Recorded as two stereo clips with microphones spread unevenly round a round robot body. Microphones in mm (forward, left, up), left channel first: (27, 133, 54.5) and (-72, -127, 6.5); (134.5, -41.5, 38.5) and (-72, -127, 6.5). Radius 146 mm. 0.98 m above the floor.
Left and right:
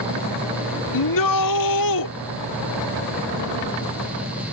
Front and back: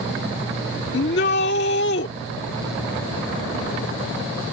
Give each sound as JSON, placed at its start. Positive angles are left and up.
{"t": 0.9, "sound": "a shout", "azimuth_deg": 75}